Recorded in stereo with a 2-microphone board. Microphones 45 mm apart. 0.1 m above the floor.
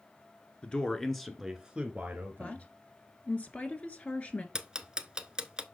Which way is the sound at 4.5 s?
20° right (ahead or behind).